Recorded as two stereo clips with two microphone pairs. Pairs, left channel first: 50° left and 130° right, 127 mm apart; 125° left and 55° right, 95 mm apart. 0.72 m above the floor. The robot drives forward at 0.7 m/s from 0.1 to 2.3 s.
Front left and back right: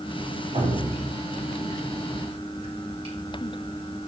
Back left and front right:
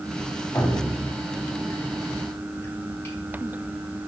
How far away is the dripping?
About 3.5 m.